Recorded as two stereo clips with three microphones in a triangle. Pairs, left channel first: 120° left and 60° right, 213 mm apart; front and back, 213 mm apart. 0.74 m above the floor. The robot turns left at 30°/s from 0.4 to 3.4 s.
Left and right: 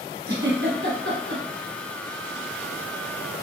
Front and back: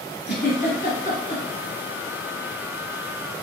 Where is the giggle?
30° right, 1.5 m; by 1.4 s 60° right, 1.5 m.